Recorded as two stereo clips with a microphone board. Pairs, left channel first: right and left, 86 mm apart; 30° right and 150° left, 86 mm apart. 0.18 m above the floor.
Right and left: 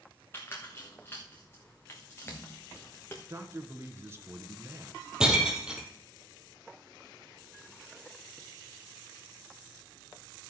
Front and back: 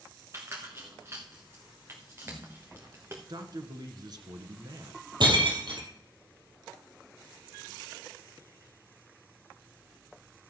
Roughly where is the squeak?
Behind right.